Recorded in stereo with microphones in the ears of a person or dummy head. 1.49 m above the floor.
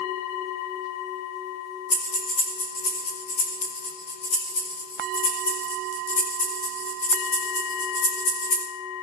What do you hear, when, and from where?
1.9 s breathing: 30° left (ahead or behind), 2 m